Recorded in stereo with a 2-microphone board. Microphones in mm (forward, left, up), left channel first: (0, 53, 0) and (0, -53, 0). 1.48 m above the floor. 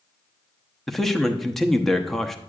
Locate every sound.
0.9 s a man speaking: 5° left (ahead or behind), 0.8 m